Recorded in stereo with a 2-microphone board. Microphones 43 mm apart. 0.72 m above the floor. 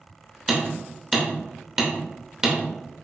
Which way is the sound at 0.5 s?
15° right (ahead or behind).